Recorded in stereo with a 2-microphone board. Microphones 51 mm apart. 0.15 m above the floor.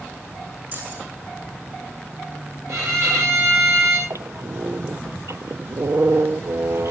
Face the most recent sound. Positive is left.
turn(degrees=-75)  # may be behind; listen again after turning